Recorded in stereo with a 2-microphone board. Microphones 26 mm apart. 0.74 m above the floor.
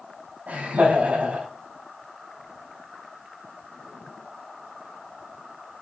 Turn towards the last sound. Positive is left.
turn(degrees=-75)  # may be behind; listen again after turning